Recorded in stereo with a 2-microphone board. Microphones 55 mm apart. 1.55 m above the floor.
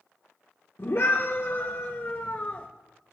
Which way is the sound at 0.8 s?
65° left (ahead or behind).